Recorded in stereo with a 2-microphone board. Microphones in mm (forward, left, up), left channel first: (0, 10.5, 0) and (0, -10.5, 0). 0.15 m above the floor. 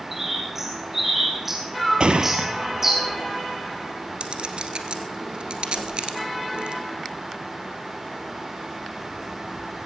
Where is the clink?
60° right (ahead or behind), 1.8 m.